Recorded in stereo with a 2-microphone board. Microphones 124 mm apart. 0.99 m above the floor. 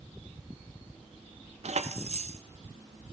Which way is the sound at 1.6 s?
60° right (ahead or behind).